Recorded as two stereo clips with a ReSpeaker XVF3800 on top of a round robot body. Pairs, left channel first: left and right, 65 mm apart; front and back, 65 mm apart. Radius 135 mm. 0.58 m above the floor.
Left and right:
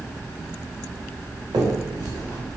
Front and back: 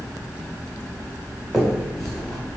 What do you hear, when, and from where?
1.5 s a finger snap: 90° right, 3 m